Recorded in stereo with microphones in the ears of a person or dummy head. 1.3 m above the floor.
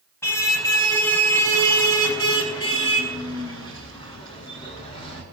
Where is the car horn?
10° left (ahead or behind), 4.5 m; by 5.2 s 25° left (ahead or behind), 7 m.